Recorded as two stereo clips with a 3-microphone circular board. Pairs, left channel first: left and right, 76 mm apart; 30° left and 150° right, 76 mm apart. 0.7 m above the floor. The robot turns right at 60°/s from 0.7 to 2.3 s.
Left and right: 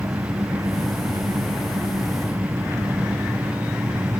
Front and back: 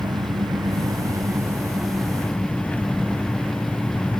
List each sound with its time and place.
0.0 s an engine running: 135° right; by 4.2 s 40° right